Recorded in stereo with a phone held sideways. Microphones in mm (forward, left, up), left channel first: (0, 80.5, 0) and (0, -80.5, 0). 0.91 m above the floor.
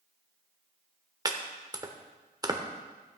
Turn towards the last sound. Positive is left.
turn(degrees=-25)  # may be behind; listen again after turning